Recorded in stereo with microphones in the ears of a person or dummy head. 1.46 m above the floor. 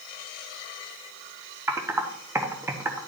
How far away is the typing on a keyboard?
About 1.0 m.